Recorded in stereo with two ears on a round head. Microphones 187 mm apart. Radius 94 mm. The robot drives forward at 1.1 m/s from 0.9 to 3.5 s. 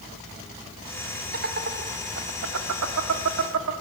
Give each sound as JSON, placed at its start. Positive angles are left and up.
{"t": 1.3, "sound": "laughter", "side_deg": -50, "distance_m": 3.0}